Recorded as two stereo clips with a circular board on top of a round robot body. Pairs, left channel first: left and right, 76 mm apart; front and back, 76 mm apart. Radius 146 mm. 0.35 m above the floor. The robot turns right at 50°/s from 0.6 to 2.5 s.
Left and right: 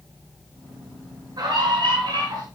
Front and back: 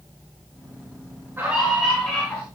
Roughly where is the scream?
Behind right.